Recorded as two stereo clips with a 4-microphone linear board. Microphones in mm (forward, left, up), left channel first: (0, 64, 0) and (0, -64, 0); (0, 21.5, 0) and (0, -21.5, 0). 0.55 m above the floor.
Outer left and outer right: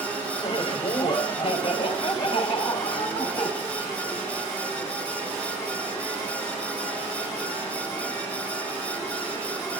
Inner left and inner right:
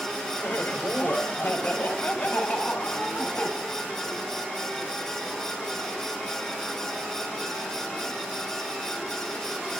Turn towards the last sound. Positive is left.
turn(degrees=40)  # may be behind; listen again after turning